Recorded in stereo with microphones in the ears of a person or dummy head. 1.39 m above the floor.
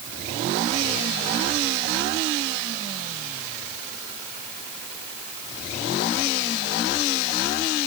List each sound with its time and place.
Only background noise.